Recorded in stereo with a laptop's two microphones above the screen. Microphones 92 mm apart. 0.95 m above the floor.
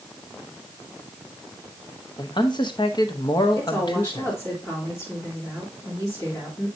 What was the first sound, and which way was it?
A man speaking, 50° left (ahead or behind).